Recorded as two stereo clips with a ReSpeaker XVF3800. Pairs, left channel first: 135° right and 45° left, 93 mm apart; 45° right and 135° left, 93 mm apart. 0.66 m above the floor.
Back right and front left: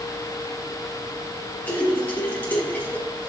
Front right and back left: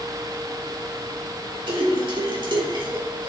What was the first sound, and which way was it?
A splash, 155° left.